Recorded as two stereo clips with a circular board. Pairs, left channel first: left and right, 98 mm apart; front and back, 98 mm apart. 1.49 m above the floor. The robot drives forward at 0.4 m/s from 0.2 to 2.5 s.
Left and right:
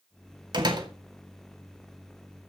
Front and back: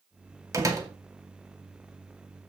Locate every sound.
0.5 s a door slam: 125° right, 2 m; by 0.9 s 130° right, 2 m